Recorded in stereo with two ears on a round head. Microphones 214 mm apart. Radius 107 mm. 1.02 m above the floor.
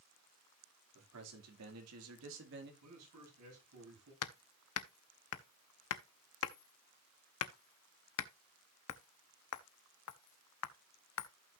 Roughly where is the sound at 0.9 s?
Right.